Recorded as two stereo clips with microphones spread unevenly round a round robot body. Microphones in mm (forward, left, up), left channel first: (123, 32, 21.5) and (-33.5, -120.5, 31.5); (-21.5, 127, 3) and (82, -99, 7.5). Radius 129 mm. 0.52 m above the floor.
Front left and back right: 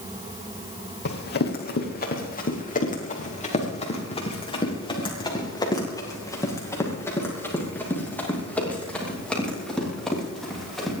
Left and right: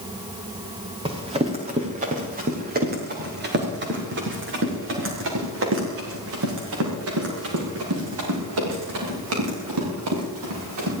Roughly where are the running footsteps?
Ahead.